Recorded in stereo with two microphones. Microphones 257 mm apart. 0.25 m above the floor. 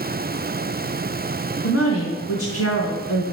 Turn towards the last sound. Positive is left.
turn(degrees=60)  # may be behind; listen again after turning